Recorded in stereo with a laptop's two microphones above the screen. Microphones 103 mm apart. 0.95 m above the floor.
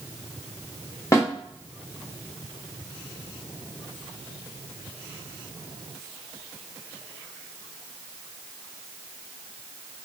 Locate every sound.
1.1 s a snare drum: 30° left (ahead or behind), 1.5 m